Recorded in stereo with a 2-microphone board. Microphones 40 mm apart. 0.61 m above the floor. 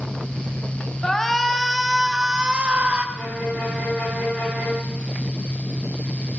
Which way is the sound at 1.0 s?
15° left (ahead or behind).